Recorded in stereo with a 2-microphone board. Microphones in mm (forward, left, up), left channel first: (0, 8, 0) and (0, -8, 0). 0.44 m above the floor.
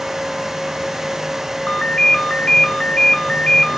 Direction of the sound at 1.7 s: 65° left (ahead or behind).